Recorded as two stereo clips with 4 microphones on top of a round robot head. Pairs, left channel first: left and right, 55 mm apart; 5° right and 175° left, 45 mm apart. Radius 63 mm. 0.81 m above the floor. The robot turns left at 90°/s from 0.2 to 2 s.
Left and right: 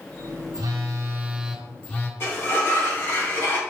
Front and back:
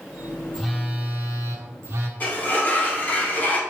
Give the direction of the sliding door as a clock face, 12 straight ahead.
10 o'clock.